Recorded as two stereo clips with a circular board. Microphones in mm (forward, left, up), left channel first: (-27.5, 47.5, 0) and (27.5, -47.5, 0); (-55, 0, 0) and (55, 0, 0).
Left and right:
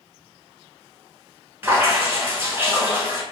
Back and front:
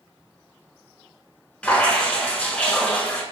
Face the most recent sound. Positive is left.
turn(degrees=-110)